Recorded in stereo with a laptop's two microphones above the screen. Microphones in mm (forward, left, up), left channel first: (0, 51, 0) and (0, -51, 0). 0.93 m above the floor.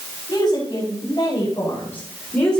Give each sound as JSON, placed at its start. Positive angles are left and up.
{"t": 0.3, "sound": "a woman speaking", "side_deg": 40, "distance_m": 5.5}